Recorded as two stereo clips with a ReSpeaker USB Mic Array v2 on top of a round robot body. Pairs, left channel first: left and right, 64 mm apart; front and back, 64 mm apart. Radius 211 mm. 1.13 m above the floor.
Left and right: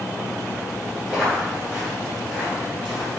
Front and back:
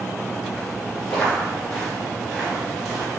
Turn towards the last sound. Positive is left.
turn(degrees=-140)